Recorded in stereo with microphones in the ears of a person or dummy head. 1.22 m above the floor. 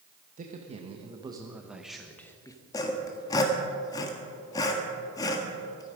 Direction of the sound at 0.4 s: 30° right (ahead or behind).